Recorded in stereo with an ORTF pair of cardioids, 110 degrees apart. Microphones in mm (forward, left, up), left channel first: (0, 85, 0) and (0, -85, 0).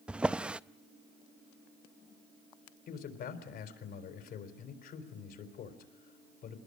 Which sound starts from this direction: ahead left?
A man speaking, at 2.9 s.